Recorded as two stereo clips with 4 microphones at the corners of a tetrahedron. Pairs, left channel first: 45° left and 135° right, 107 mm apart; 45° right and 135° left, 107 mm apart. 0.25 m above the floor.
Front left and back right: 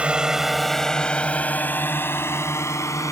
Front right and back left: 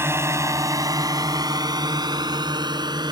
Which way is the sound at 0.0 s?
160° left.